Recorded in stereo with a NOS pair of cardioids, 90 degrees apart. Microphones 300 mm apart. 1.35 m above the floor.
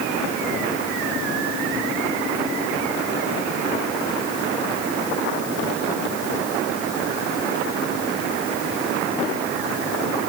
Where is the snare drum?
No snare drum in this recording.